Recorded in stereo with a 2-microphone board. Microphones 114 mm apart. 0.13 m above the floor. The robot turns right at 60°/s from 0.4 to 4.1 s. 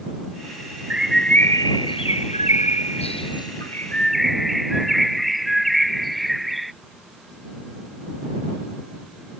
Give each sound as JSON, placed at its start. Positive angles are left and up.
{"t": 0.9, "sound": "a bird", "azimuth_deg": -15}